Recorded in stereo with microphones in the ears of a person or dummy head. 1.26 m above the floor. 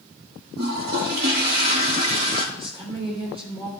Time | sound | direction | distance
0.6 | a toilet flushing | 65° right (ahead or behind) | 2.5 m
2.5 | a woman speaking | 30° right (ahead or behind) | 4 m